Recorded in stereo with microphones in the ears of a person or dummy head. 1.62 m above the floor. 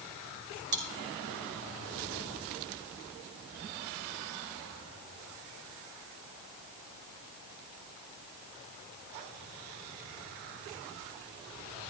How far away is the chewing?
About 3.5 m.